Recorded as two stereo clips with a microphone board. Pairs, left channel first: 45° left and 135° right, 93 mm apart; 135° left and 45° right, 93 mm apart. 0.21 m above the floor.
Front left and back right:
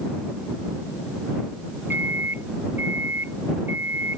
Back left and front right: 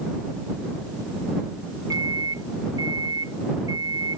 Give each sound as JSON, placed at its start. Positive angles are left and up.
{"t": 1.9, "sound": "a microwave", "azimuth_deg": -75}